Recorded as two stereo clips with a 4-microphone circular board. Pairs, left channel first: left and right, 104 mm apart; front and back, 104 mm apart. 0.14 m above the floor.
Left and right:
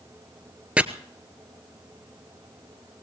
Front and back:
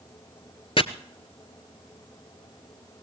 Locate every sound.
0.8 s chopping: 15° right, 0.8 m